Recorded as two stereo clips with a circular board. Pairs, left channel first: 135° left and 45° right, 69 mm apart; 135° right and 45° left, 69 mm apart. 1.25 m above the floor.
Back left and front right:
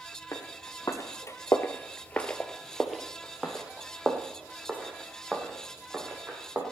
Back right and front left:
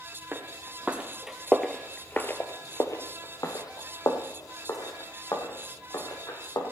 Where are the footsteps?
100° left, 2.5 m; by 6.6 s 105° right, 6 m.